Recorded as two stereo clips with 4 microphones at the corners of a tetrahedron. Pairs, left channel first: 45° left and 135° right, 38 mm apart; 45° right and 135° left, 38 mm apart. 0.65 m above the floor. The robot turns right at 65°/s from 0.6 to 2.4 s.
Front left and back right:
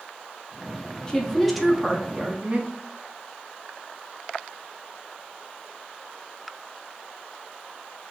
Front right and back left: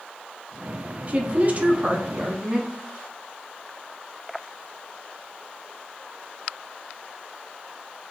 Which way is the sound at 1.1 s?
100° left.